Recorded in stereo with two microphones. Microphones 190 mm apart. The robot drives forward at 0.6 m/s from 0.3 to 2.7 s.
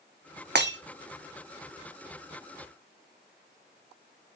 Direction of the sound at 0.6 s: 65° right (ahead or behind).